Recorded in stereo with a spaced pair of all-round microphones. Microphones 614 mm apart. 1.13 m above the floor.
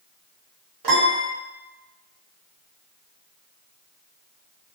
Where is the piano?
40° right (ahead or behind), 0.8 m.